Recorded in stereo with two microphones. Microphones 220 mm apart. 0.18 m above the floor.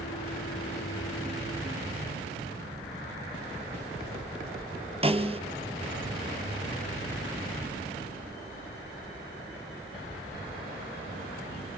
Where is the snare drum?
25° right (ahead or behind), 1.6 m.